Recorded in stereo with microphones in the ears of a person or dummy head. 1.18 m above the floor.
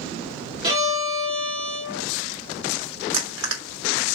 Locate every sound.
0.6 s a violin: 25° right (ahead or behind), 2.5 m
3.1 s crushing: 70° right (ahead or behind), 1.7 m